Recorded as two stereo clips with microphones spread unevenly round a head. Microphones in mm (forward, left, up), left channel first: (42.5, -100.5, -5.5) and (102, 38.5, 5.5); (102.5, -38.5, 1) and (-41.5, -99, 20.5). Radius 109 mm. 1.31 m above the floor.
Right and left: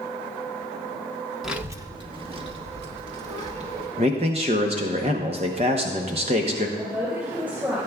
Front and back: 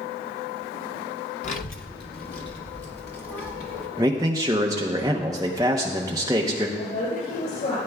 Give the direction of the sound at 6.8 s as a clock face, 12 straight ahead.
12 o'clock.